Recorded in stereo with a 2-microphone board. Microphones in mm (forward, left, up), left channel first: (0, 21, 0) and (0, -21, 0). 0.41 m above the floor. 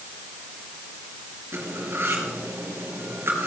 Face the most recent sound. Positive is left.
turn(degrees=-70)  # may be behind; listen again after turning